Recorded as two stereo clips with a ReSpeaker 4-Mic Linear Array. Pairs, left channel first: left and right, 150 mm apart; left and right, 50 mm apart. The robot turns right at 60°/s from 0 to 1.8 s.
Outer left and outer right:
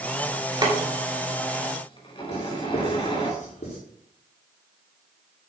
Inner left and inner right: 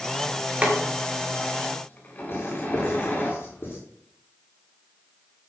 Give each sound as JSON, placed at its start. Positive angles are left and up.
{"t": 0.6, "sound": "boiling", "side_deg": -30, "distance_m": 4.5}
{"t": 2.3, "sound": "writing", "side_deg": 60, "distance_m": 7.5}